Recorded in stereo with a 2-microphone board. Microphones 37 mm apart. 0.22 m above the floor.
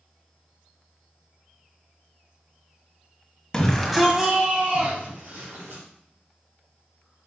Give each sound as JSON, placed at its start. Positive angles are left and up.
{"t": 3.5, "sound": "a shout", "side_deg": 15, "distance_m": 1.2}